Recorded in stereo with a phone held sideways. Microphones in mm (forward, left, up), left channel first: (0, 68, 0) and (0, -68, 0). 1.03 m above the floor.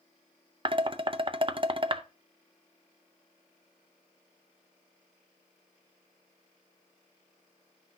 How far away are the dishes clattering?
About 0.6 m.